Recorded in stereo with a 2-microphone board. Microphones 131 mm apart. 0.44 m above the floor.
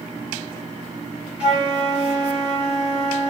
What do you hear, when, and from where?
1.4 s a flute: 5° right (ahead or behind), 1.3 m